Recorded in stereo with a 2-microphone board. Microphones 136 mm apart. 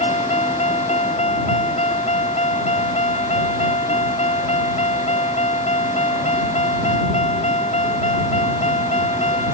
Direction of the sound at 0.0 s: 55° left (ahead or behind).